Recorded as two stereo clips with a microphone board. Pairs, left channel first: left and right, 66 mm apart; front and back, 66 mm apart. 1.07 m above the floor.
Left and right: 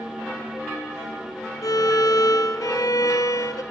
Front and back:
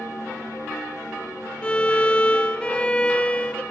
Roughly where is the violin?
Left.